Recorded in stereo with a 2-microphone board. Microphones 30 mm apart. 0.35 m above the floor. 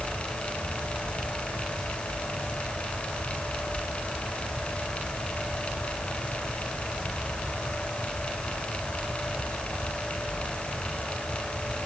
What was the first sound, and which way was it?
Only background noise.